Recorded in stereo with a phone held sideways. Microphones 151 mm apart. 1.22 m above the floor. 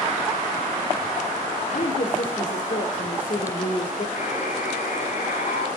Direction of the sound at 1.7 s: 60° left (ahead or behind).